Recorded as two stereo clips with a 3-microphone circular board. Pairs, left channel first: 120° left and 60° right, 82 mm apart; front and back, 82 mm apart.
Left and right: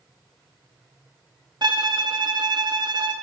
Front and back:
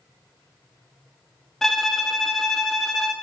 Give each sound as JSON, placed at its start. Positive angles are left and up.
{"t": 1.6, "sound": "a violin", "azimuth_deg": -85, "distance_m": 0.8}